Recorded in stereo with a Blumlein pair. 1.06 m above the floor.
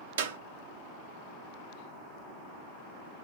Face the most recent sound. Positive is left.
turn(degrees=-60)